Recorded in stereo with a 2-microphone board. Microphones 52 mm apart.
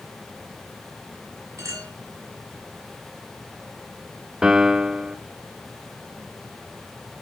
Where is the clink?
65° right (ahead or behind), 5.5 m.